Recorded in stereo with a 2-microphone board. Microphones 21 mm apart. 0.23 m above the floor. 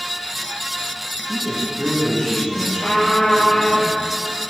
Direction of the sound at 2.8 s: 65° left (ahead or behind).